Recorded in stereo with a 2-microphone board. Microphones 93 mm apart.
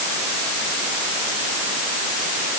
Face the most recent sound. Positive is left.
No sound to turn to.